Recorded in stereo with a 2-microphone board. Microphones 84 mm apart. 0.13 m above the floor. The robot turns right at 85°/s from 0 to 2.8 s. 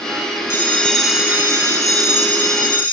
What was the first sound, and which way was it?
A bell, 140° left.